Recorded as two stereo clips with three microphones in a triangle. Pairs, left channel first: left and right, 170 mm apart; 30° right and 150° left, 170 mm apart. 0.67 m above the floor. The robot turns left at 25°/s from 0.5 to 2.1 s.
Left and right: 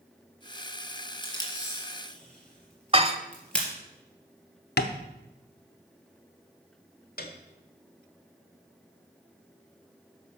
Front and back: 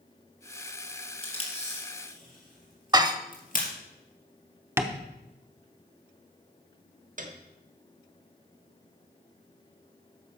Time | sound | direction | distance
1.2 | tape being pulled | 30° left | 3 m
2.9 | dishes clattering | 145° right | 0.9 m
4.8 | tapping | 75° left | 0.8 m
7.2 | a piano | 115° left | 1.3 m